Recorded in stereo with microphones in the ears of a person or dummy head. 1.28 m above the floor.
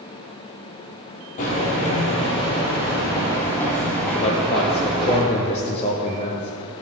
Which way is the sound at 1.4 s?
45° left (ahead or behind).